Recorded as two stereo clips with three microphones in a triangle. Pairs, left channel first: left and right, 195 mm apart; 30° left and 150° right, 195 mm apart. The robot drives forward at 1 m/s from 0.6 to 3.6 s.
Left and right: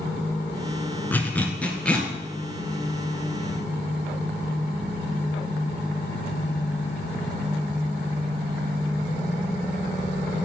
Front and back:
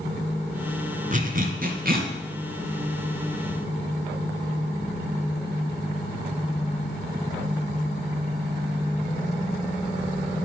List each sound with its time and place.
1.1 s a zipper: 170° left, 1.6 m; by 2.1 s 175° left, 2.5 m